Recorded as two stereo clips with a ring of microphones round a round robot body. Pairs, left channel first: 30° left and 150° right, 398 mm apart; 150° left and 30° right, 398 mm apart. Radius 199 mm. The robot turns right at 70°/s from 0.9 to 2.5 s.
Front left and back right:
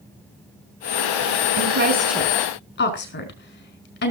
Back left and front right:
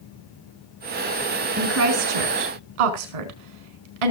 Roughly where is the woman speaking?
Right.